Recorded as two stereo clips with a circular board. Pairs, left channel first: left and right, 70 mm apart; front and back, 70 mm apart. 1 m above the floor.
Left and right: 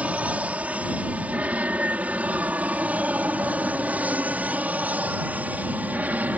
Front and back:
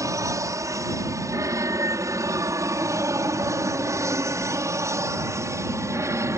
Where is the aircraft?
155° right; by 6.4 s 150° right.